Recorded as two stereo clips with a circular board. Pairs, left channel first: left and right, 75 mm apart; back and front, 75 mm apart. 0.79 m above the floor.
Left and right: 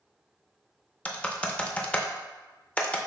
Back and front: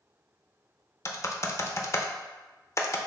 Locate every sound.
1.1 s typing on a keyboard: 155° left, 0.5 m